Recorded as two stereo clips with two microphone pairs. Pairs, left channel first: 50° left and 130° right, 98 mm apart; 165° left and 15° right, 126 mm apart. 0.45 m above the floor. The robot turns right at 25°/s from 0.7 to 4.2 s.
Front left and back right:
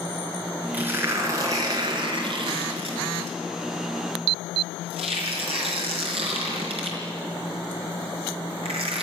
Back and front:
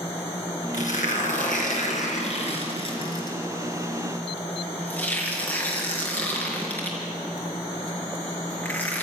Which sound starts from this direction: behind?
Tearing paper, at 0.7 s.